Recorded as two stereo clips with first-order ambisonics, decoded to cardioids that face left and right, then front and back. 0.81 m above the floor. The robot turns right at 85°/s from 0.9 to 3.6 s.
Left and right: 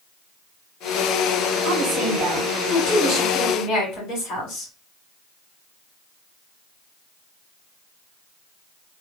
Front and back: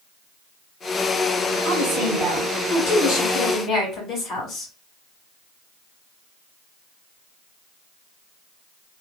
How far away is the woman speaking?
About 3 m.